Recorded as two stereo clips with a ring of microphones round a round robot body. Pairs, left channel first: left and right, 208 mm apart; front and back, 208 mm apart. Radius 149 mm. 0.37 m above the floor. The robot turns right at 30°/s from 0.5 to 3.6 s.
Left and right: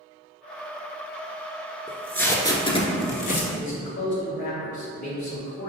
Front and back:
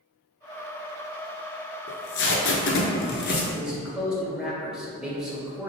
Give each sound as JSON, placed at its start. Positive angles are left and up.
{"t": 1.9, "sound": "tape being pulled", "azimuth_deg": 0, "distance_m": 1.0}
{"t": 3.5, "sound": "a man speaking", "azimuth_deg": 95, "distance_m": 1.6}